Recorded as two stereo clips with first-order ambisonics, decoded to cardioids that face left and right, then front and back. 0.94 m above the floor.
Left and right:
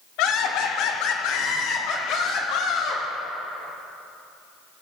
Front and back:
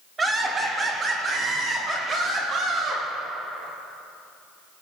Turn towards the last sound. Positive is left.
turn(degrees=120)